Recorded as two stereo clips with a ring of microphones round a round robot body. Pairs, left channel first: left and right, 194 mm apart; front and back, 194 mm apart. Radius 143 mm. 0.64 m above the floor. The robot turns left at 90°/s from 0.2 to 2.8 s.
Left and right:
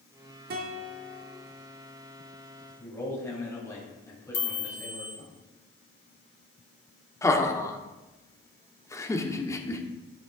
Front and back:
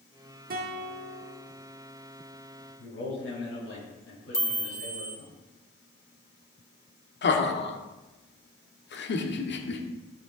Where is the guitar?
130° right, 1.2 m; by 1.4 s 150° left, 1.2 m.